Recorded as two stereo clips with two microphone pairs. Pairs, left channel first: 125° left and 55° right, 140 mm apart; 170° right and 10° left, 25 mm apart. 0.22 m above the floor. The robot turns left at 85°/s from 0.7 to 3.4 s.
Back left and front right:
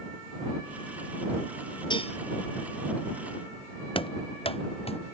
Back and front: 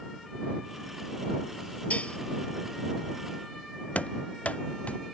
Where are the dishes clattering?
175° right; by 2.2 s 160° left.